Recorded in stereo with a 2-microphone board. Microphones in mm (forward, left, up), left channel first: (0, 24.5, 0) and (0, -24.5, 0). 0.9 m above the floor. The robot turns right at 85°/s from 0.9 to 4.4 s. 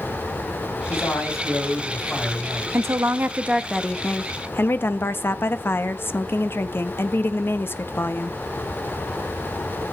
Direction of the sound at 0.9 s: 50° left.